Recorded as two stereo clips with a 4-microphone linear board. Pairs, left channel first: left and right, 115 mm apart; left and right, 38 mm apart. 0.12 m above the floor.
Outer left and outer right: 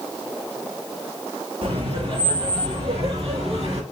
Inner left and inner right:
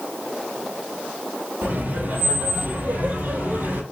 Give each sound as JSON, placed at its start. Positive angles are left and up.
{"t": 1.6, "sound": "laughter", "side_deg": -60, "distance_m": 3.0}